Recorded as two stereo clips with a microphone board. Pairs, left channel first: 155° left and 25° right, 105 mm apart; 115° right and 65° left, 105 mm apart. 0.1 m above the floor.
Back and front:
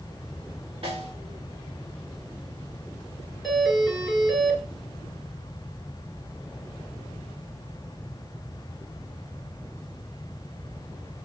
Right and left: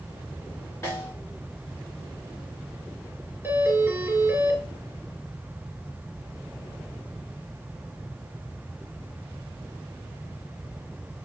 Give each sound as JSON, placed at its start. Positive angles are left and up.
{"t": 0.8, "sound": "a snare drum", "azimuth_deg": -50, "distance_m": 4.0}
{"t": 3.4, "sound": "a doorbell", "azimuth_deg": 75, "distance_m": 1.6}